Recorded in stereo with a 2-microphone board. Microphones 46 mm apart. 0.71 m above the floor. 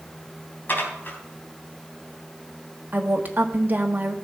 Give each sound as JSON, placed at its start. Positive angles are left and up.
{"t": 0.7, "sound": "dishes clattering", "side_deg": 40, "distance_m": 3.5}
{"t": 2.9, "sound": "a woman speaking", "side_deg": -40, "distance_m": 1.4}